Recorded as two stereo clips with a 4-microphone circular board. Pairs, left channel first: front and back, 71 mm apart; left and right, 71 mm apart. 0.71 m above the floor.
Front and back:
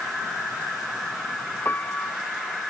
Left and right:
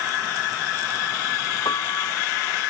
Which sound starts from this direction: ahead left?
A piano, at 1.6 s.